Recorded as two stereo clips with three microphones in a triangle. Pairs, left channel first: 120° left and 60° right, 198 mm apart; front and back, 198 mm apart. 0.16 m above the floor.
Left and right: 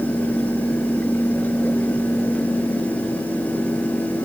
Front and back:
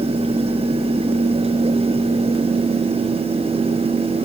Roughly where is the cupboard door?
I don't hear a cupboard door.